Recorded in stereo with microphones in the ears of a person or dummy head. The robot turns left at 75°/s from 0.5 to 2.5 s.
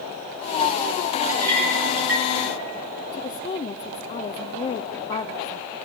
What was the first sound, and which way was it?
A clink, 15° right (ahead or behind).